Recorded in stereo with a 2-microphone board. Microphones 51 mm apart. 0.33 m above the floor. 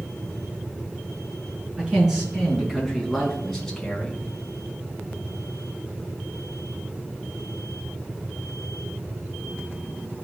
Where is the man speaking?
15° right (ahead or behind), 3.5 m; by 4.2 s 15° left (ahead or behind), 2.5 m.